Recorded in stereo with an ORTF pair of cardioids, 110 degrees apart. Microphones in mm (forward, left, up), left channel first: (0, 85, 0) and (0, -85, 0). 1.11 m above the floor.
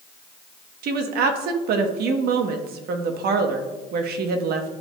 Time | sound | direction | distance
0.8 | a woman speaking | 65° right | 1.0 m